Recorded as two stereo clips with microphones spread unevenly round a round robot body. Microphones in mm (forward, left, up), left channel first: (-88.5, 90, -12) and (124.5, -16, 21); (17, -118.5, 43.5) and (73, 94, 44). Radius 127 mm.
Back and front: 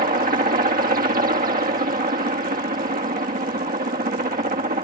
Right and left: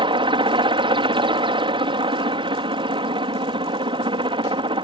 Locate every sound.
0.0 s a helicopter: 20° left